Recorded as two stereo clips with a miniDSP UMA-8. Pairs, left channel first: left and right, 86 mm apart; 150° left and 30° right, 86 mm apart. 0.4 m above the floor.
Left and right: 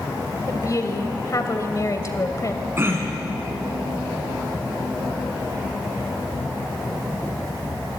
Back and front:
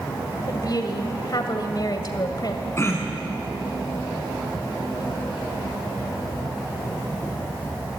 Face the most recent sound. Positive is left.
turn(degrees=-150)